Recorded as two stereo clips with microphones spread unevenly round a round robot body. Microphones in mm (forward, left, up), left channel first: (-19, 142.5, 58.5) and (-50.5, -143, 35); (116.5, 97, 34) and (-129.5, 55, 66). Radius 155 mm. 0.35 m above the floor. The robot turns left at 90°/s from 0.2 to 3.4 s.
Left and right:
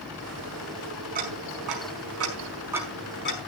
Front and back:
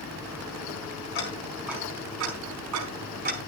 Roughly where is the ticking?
Ahead right.